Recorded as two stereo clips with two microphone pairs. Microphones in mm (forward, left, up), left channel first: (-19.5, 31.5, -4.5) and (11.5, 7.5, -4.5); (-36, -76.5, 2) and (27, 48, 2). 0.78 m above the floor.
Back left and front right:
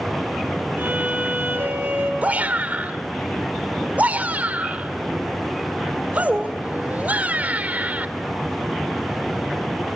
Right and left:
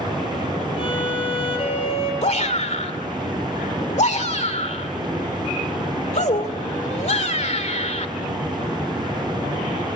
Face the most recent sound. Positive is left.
turn(degrees=-85)